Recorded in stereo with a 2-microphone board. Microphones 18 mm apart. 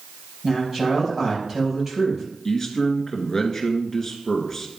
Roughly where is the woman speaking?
Centre.